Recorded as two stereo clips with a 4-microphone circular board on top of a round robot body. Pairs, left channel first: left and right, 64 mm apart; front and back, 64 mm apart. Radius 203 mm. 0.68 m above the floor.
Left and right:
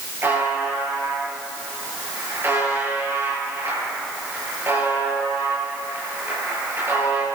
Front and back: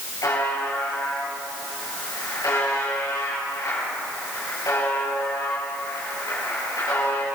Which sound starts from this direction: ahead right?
A buzzer, at 0.2 s.